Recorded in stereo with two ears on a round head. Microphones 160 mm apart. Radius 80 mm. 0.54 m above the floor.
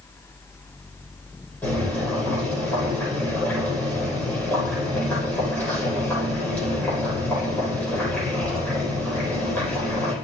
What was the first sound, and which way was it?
Boiling, 10° left (ahead or behind).